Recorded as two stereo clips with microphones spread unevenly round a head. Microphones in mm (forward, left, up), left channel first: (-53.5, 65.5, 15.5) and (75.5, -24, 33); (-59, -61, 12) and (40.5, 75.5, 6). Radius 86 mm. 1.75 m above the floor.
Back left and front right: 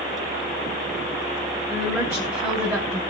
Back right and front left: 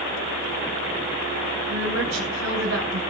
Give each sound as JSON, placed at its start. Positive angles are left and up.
{"t": 1.7, "sound": "a woman speaking", "azimuth_deg": 35, "distance_m": 7.5}